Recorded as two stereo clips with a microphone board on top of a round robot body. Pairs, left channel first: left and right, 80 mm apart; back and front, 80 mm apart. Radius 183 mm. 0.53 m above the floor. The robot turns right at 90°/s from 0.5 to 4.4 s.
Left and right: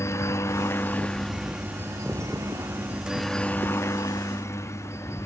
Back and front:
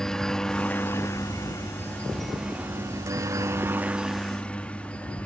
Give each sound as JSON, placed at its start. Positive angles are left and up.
{"t": 0.0, "sound": "a helicopter", "azimuth_deg": 100}